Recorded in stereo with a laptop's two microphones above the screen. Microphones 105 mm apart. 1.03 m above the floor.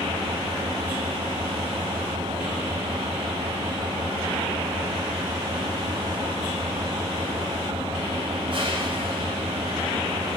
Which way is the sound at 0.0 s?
55° right (ahead or behind).